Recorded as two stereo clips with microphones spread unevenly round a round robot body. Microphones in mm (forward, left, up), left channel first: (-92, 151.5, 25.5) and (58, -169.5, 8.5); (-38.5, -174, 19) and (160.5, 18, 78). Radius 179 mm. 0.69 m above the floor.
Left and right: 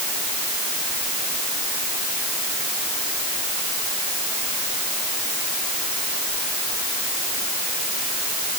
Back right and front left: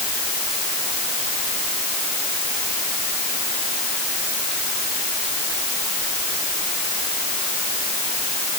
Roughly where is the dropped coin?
No dropped coin in this recording.